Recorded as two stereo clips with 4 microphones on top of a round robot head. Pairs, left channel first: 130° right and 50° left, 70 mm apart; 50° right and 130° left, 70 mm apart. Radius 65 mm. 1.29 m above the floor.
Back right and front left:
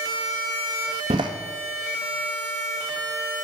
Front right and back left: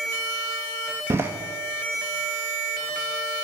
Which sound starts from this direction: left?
A door slam, at 1.1 s.